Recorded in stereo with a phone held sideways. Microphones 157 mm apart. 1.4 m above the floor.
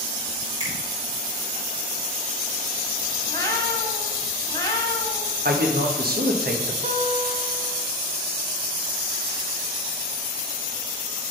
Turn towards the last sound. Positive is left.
turn(degrees=-55)  # may be behind; listen again after turning